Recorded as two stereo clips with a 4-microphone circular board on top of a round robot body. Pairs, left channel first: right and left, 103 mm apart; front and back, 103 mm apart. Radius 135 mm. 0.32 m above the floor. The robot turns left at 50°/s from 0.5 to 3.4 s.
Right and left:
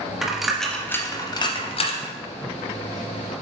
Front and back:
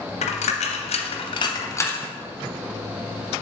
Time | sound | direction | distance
0.2 | a dropped coin | 5° left | 0.7 m